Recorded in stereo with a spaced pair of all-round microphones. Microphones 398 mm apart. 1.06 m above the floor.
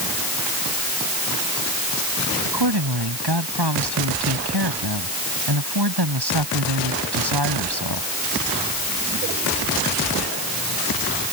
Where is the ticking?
I don't hear ticking.